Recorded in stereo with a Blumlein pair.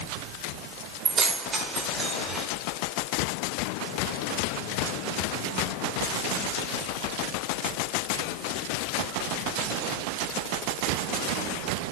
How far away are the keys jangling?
About 4.5 m.